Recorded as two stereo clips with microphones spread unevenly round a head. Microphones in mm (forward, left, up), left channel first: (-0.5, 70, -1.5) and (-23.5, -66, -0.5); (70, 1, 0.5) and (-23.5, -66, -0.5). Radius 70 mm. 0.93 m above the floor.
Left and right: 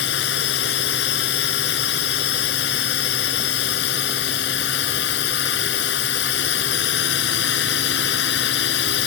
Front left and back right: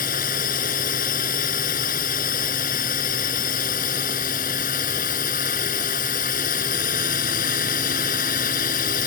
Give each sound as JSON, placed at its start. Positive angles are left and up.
{"t": 0.0, "sound": "a drone", "azimuth_deg": 70}